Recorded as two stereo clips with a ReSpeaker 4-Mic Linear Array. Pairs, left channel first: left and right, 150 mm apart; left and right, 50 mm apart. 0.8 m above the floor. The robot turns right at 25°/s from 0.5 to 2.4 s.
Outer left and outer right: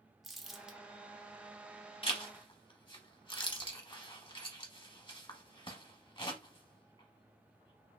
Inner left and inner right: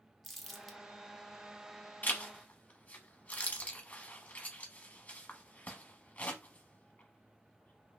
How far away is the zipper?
About 0.9 m.